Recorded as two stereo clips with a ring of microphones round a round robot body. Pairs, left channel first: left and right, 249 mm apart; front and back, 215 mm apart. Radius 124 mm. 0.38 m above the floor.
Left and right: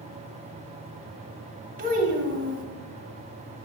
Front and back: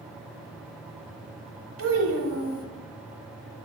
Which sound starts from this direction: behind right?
A child speaking, at 1.8 s.